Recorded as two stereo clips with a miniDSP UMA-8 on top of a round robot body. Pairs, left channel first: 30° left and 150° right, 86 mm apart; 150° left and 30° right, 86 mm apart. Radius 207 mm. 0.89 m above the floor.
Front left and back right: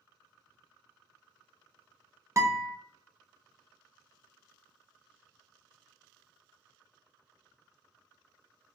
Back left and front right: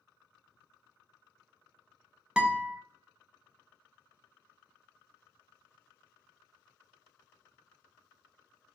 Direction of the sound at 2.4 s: 105° right.